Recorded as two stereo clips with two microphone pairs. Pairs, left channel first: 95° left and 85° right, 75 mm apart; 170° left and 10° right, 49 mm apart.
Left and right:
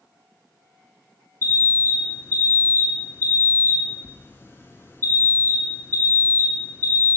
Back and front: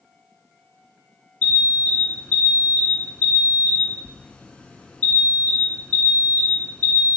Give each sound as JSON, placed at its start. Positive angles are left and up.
{"t": 1.4, "sound": "an alarm", "azimuth_deg": 120, "distance_m": 0.9}